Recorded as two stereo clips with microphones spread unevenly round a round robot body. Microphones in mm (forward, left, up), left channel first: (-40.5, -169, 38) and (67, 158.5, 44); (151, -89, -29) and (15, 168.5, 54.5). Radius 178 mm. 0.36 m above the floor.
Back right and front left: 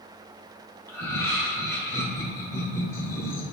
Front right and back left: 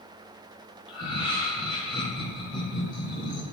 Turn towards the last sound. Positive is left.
turn(degrees=-35)